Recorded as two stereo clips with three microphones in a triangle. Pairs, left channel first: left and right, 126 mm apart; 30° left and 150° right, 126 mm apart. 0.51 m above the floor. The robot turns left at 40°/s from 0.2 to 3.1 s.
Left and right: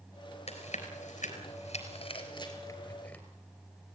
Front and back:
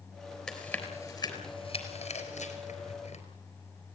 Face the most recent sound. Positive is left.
turn(degrees=10)